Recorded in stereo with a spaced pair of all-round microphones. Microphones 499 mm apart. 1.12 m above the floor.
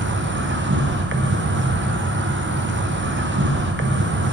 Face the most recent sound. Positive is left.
turn(degrees=-25)  # may be behind; listen again after turning